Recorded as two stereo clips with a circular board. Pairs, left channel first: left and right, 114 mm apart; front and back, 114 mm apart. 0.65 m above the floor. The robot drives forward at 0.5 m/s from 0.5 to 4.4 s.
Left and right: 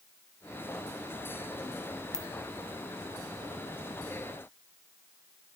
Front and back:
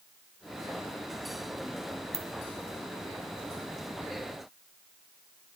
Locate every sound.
2.1 s a ringtone: 175° left, 0.9 m